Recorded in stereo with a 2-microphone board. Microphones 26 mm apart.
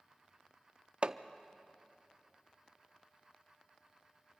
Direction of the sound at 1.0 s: 40° right (ahead or behind).